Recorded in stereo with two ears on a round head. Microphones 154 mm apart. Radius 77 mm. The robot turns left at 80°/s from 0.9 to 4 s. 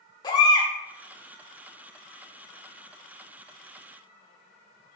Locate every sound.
0.2 s a baby crying: 25° left (ahead or behind), 1.8 m